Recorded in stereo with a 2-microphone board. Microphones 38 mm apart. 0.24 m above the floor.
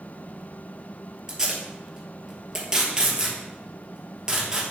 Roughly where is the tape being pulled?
Centre.